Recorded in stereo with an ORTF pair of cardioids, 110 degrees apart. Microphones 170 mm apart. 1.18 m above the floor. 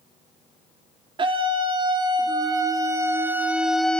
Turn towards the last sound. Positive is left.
turn(degrees=5)